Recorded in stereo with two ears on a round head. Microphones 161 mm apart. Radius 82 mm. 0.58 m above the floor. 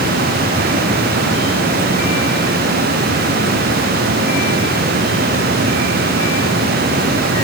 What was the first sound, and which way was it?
Only background noise.